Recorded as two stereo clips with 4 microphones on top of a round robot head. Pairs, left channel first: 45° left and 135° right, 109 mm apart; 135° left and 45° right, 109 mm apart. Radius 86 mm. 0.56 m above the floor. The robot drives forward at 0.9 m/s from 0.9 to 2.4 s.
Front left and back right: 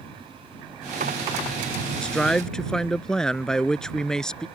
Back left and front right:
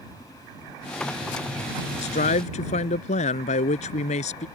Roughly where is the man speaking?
Behind left.